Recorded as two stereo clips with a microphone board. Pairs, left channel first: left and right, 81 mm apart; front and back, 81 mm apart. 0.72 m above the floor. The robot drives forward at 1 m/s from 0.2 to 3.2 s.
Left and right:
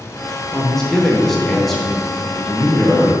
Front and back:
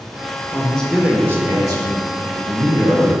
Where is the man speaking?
10° left, 0.8 m; by 3.1 s straight behind, 2.5 m.